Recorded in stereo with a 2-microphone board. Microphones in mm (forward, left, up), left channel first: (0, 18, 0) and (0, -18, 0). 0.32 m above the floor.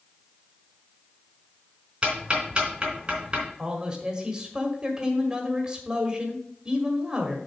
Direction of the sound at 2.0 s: 30° right (ahead or behind).